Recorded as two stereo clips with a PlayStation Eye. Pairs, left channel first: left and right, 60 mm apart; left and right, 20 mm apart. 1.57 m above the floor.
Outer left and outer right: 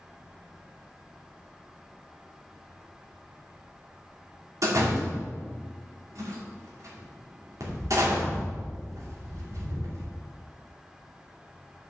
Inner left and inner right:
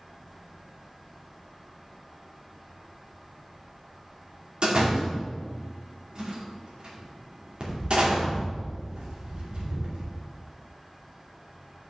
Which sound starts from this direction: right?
A door slam, at 4.6 s.